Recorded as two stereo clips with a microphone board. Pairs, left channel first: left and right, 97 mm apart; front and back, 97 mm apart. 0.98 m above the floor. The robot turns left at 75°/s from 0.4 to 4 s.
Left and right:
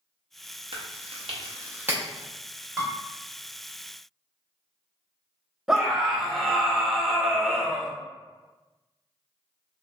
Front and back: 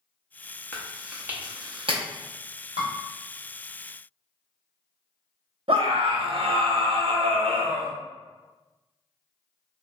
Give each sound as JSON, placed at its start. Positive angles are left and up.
{"t": 0.7, "sound": "chewing", "azimuth_deg": -70, "distance_m": 0.7}
{"t": 2.8, "sound": "dishes clattering", "azimuth_deg": 180, "distance_m": 1.4}
{"t": 5.7, "sound": "a scream", "azimuth_deg": -175, "distance_m": 0.7}